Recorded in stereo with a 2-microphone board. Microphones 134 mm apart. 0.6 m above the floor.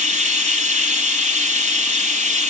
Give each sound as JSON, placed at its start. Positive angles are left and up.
{"t": 0.0, "sound": "running water", "side_deg": -75, "distance_m": 4.0}